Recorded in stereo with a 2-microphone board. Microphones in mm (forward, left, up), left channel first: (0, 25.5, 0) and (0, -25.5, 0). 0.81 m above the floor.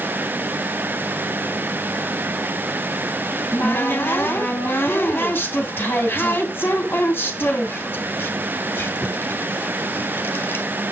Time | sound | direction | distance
3.3 | a cupboard door | 40° left (ahead or behind) | 2 m